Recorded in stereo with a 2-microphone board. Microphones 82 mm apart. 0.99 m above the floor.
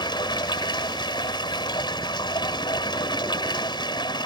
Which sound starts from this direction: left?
Running water, at 0.0 s.